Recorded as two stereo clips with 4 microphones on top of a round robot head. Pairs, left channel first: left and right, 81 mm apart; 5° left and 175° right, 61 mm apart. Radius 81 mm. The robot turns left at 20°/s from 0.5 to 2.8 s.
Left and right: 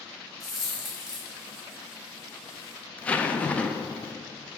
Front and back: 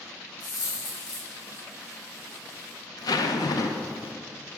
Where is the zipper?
15° left, 0.6 m.